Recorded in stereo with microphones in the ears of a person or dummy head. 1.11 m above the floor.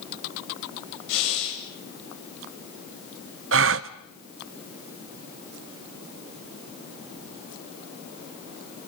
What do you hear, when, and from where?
1.1 s breathing: 80° left, 7.5 m
3.5 s a gasp: 70° right (ahead or behind), 0.8 m